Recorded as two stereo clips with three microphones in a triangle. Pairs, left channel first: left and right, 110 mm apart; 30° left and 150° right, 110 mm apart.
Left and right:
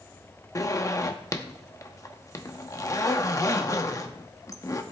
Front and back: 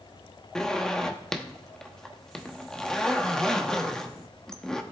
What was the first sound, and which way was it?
A zipper, 110° left.